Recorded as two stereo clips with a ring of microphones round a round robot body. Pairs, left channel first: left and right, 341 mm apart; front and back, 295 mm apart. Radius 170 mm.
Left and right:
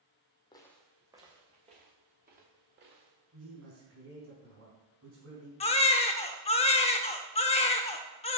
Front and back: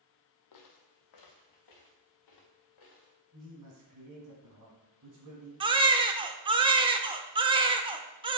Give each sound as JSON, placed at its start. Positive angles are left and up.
{"t": 0.5, "sound": "footsteps", "azimuth_deg": 15, "distance_m": 1.2}
{"t": 3.3, "sound": "a man speaking", "azimuth_deg": -140, "distance_m": 3.5}
{"t": 5.6, "sound": "a baby crying", "azimuth_deg": 135, "distance_m": 0.6}